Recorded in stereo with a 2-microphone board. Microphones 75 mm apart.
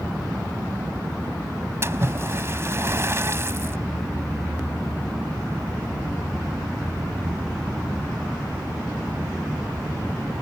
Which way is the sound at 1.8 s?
35° right (ahead or behind).